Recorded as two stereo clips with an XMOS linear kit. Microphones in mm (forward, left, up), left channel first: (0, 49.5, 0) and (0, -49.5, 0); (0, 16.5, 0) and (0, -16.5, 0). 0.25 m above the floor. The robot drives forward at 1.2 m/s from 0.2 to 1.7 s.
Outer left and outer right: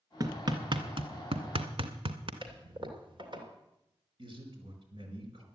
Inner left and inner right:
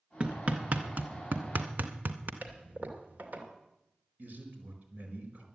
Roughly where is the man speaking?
Right.